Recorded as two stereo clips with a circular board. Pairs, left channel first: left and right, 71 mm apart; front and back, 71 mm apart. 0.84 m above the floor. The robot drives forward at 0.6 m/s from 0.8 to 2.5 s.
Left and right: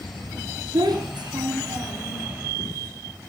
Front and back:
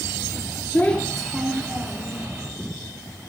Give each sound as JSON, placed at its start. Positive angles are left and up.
{"t": 0.7, "sound": "a child speaking", "azimuth_deg": -70, "distance_m": 0.7}